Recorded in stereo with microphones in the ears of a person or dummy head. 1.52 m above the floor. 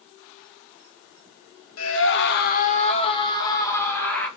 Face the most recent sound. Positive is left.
turn(degrees=10)  # may be behind; listen again after turning